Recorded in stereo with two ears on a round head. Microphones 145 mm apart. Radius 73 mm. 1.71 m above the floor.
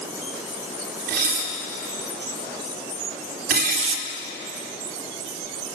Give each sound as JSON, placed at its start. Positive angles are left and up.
{"t": 1.1, "sound": "dishes clattering", "side_deg": -65, "distance_m": 3.5}
{"t": 3.8, "sound": "tearing paper", "side_deg": -40, "distance_m": 1.1}